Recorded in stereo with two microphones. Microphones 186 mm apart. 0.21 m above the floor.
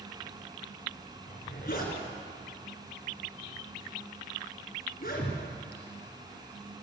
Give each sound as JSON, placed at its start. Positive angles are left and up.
{"t": 1.3, "sound": "a zipper", "side_deg": 55, "distance_m": 2.5}